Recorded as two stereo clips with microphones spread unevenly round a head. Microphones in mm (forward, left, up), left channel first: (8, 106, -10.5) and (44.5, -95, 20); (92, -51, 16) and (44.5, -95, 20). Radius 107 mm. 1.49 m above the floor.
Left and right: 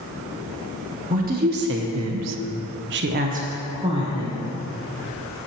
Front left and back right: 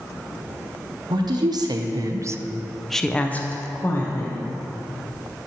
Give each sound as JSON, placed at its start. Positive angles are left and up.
{"t": 1.1, "sound": "a woman speaking", "azimuth_deg": -135, "distance_m": 1.0}